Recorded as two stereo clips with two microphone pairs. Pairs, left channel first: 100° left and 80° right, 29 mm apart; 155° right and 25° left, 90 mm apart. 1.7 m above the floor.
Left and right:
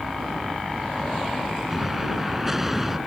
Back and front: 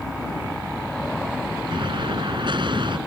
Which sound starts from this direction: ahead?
An explosion, at 1.7 s.